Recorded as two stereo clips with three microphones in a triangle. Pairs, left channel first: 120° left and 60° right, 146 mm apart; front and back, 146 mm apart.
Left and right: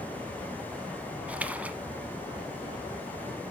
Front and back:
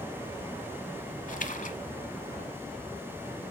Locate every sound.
1.3 s a splash: 20° left, 0.8 m